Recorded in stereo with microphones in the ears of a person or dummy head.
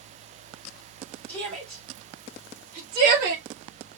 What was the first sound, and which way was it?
A shout, 10° left (ahead or behind).